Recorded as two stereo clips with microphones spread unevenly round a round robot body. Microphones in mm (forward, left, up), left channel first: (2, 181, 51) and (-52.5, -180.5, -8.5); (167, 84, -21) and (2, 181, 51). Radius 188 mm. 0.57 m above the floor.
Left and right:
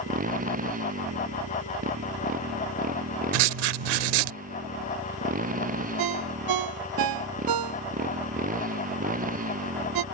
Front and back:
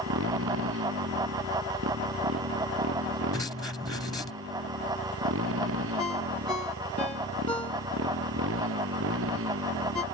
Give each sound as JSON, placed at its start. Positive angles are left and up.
{"t": 0.0, "sound": "a motorcycle", "azimuth_deg": -165}
{"t": 3.3, "sound": "writing", "azimuth_deg": -125}
{"t": 6.0, "sound": "a ringtone", "azimuth_deg": -110}